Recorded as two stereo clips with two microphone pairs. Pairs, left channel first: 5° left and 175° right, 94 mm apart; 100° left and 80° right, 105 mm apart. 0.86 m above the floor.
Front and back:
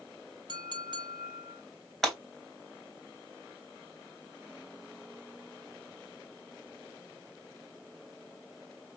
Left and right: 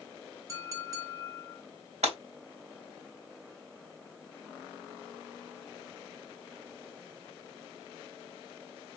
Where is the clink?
135° right, 1.0 m.